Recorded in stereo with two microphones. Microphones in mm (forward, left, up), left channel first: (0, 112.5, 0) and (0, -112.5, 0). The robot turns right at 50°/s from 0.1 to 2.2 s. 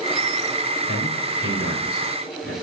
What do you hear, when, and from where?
0.9 s a man speaking: 45° left (ahead or behind), 4 m; by 2.5 s 65° left (ahead or behind), 4 m